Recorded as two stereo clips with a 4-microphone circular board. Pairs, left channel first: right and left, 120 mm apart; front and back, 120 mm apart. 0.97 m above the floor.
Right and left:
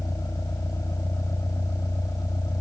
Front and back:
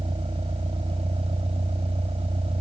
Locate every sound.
0.0 s a vehicle: 150° right